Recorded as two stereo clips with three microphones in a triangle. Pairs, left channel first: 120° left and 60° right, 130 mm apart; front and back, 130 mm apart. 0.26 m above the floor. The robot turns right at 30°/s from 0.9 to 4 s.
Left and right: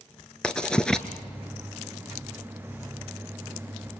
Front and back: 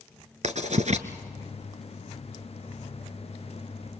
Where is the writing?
155° right, 1.5 m; by 1.1 s 150° right, 1.5 m.